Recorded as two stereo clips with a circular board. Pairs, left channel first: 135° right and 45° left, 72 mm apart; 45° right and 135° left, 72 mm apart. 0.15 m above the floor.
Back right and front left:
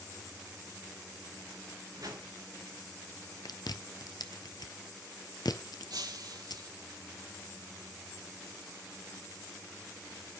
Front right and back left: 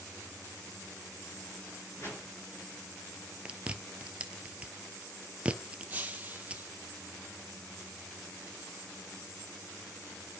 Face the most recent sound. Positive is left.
turn(degrees=70)